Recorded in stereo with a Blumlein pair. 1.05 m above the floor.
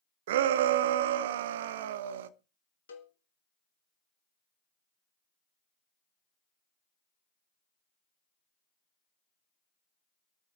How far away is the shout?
About 0.8 m.